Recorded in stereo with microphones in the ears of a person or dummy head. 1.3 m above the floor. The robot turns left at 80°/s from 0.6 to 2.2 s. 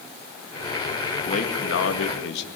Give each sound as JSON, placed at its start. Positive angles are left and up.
{"t": 1.3, "sound": "a man speaking", "azimuth_deg": 145, "distance_m": 1.8}